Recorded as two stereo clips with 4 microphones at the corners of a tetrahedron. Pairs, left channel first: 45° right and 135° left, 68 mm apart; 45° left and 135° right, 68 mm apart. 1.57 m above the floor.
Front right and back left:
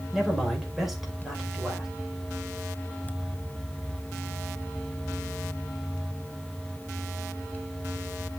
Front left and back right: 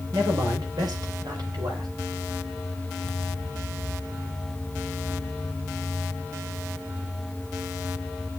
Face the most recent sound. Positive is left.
turn(degrees=-140)